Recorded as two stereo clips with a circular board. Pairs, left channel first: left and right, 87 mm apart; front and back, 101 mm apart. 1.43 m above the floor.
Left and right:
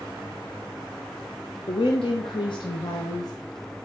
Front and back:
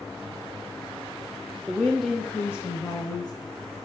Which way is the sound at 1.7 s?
100° left.